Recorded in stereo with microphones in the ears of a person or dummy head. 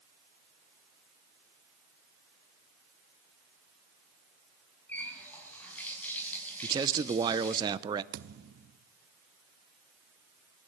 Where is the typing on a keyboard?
No typing on a keyboard in this recording.